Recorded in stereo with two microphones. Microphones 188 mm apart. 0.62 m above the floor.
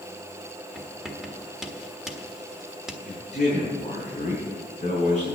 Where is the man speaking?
40° left (ahead or behind), 7 m.